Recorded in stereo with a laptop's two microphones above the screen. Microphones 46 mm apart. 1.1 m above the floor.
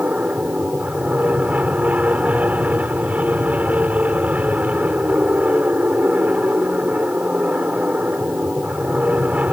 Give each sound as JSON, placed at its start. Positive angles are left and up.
{"t": 0.0, "sound": "an aircraft", "side_deg": -35}